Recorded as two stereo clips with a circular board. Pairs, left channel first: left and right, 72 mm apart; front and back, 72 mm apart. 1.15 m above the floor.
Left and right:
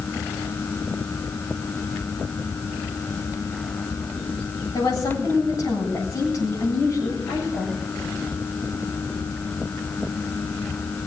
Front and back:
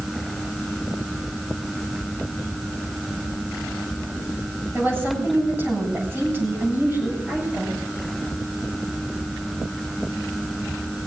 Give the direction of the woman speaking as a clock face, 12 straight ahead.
8 o'clock.